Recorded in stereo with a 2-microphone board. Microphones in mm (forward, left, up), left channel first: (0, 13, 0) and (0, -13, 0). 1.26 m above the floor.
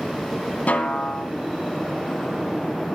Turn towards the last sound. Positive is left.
turn(degrees=75)  # may be behind; listen again after turning